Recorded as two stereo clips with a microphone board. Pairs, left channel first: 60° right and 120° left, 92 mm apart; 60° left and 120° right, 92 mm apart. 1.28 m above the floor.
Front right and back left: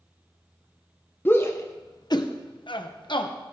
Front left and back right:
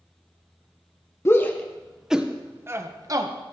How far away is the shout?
About 1.1 m.